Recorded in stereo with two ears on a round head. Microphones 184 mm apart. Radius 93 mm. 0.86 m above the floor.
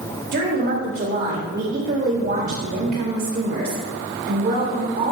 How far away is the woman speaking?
About 3.5 m.